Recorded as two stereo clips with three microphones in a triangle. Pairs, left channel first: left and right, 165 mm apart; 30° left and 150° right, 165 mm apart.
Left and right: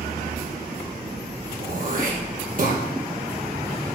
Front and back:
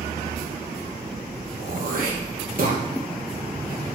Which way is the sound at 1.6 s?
120° right.